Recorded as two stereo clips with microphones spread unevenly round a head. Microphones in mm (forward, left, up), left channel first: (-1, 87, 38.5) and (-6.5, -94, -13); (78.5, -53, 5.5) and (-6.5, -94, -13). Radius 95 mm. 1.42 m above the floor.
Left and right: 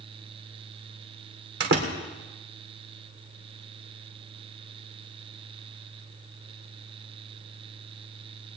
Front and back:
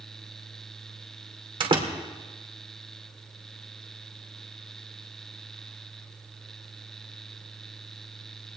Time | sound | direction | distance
1.6 | a door slam | 130° right | 3 m